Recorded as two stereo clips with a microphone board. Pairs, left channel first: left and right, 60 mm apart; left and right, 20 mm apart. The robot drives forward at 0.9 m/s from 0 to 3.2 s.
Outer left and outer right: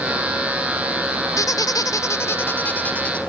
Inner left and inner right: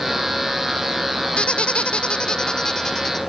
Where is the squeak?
60° left (ahead or behind), 0.6 m; by 3.2 s 20° left (ahead or behind), 1.5 m.